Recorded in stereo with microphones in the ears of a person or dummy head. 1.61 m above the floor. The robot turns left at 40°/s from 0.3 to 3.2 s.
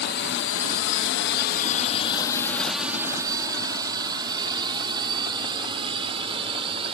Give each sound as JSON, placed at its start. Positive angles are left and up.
{"t": 0.0, "sound": "a drone", "side_deg": 45}